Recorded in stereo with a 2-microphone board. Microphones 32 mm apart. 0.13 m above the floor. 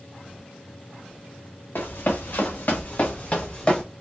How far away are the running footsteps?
About 1.2 m.